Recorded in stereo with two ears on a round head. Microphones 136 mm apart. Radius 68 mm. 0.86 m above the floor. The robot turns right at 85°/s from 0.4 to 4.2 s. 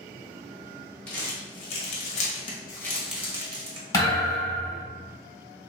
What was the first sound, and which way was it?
Crumpling, 5° left (ahead or behind).